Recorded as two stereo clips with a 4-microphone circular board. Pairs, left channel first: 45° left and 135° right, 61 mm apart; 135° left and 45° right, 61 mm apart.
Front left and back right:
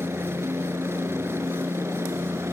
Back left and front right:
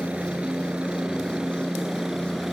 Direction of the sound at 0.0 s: 115° right.